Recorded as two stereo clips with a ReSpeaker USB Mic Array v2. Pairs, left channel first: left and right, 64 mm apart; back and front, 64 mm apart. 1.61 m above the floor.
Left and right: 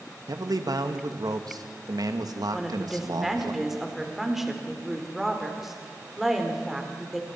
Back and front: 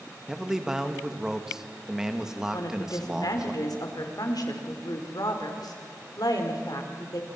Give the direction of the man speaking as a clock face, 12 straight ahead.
3 o'clock.